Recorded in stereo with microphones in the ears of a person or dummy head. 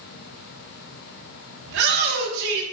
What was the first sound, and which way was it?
A shout, 60° right (ahead or behind).